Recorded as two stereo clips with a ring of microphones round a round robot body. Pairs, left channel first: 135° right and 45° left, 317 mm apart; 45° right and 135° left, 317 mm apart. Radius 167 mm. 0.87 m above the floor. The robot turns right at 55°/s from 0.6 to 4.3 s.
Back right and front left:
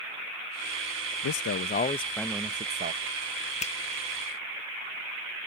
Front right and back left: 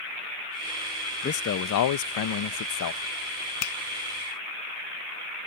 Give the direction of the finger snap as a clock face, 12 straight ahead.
2 o'clock.